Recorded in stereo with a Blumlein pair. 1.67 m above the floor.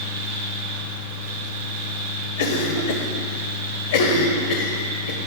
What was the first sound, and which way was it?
A fan, 70° right.